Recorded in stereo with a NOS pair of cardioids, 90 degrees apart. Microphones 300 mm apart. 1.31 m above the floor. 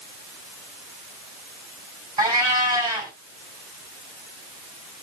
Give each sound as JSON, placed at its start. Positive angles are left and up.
{"t": 2.2, "sound": "a cat meowing", "azimuth_deg": -15, "distance_m": 3.5}